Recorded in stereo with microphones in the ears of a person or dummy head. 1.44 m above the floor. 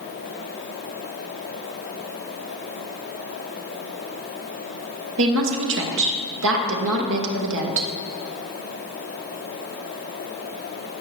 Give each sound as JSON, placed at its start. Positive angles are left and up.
{"t": 5.2, "sound": "a woman speaking", "side_deg": -65, "distance_m": 1.6}